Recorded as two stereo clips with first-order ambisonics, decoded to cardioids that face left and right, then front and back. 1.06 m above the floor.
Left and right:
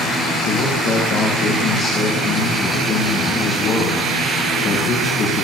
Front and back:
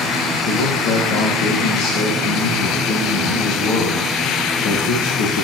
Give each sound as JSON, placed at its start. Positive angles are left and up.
{"t": 0.5, "sound": "a man speaking", "azimuth_deg": 35, "distance_m": 2.0}